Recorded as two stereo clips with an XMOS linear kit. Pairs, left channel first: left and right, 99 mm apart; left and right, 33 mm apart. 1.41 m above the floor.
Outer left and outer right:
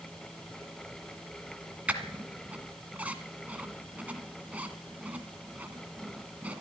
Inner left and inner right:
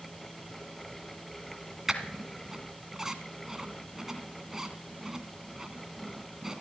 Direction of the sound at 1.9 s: 15° right (ahead or behind).